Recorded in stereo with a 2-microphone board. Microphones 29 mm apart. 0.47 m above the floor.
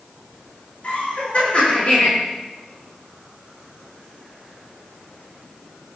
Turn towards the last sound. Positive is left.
turn(degrees=45)  # may be behind; listen again after turning